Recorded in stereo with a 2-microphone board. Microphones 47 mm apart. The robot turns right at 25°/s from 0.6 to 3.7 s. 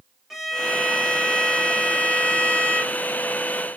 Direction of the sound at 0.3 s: 5° right.